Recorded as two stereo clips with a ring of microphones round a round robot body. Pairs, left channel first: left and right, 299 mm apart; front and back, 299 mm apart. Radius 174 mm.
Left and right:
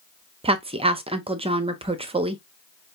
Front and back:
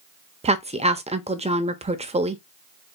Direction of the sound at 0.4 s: 140° right.